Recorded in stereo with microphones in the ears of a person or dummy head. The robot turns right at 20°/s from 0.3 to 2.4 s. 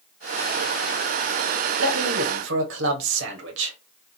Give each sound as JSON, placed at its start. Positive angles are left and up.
{"t": 1.8, "sound": "a man speaking", "side_deg": -85, "distance_m": 1.1}